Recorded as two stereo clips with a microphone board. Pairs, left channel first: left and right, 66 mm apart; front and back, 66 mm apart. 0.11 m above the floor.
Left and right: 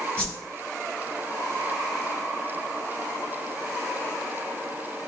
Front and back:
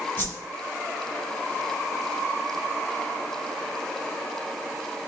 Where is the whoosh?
30° left, 1.7 m.